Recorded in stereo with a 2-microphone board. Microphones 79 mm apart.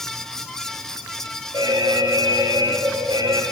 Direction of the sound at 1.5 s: 60° right (ahead or behind).